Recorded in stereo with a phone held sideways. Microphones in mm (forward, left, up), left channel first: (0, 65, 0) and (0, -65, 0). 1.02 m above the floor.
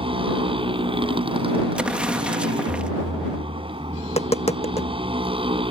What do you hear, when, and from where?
0.0 s a motorcycle: 45° right (ahead or behind)
1.8 s an explosion: 10° right (ahead or behind)
4.0 s tapping: 55° left (ahead or behind)